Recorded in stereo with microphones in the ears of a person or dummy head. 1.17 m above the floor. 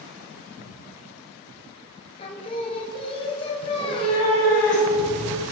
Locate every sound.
2.2 s singing: 25° left (ahead or behind), 0.8 m
3.6 s a cat meowing: 40° left (ahead or behind), 3.5 m